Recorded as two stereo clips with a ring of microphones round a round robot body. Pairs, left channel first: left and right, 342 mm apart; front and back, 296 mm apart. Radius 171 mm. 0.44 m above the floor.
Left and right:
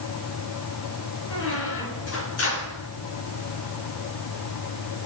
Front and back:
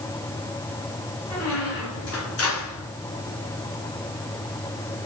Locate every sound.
1.3 s a squeak: 40° left, 4 m